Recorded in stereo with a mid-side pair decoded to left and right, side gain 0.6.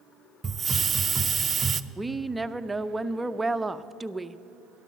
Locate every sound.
0.4 s a hiss: 30° right, 0.5 m
2.0 s a woman speaking: 10° right, 0.6 m